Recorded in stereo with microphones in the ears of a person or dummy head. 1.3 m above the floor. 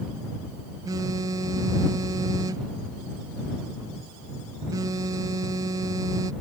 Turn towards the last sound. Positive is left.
turn(degrees=-15)  # may be behind; listen again after turning